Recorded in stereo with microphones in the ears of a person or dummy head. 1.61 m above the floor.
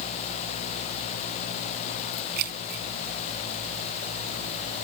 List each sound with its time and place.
2.4 s keys jangling: 55° right (ahead or behind)